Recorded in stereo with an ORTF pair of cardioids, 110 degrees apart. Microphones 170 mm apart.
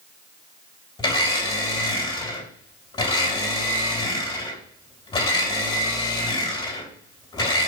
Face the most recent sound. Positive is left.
turn(degrees=25)